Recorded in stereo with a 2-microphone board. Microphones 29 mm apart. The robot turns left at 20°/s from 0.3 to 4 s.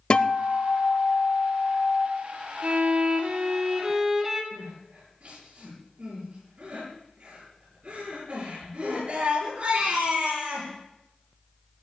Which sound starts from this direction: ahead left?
A guitar, at 0.1 s.